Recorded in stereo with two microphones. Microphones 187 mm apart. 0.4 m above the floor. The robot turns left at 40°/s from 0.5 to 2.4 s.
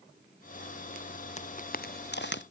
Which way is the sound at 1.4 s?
40° left (ahead or behind).